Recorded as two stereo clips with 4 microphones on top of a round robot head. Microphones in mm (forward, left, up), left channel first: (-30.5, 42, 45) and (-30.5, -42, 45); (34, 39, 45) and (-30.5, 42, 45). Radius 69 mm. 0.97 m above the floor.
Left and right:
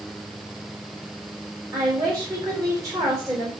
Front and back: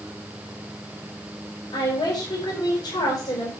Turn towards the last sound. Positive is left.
turn(degrees=-35)